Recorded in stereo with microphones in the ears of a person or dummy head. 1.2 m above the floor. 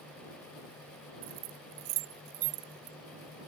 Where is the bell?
I don't hear a bell.